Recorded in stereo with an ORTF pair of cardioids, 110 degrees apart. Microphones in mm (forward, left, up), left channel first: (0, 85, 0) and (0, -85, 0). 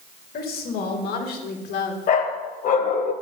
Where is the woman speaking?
65° left, 4 m; by 2.0 s 70° left, 2.5 m.